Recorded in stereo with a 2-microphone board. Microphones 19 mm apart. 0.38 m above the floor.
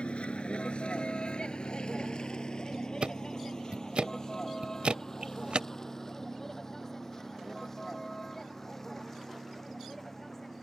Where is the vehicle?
75° left (ahead or behind); by 10.6 s 15° left (ahead or behind).